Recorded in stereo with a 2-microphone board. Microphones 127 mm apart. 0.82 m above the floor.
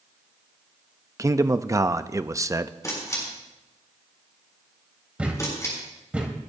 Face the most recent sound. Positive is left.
turn(degrees=-10)  # may be behind; listen again after turning